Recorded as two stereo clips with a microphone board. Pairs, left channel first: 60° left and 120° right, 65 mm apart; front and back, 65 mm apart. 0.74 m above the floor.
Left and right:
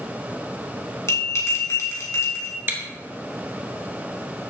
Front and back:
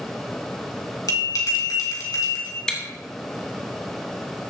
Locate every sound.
1.1 s a bell: 20° left, 3 m
2.7 s chewing: 75° right, 1.4 m